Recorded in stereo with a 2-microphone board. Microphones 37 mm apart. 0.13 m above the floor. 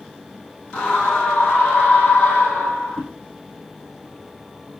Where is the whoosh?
25° left (ahead or behind), 5 m.